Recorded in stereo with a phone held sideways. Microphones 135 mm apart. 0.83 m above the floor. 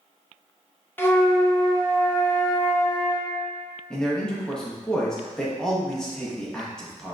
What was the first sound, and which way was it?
A flute, 15° left (ahead or behind).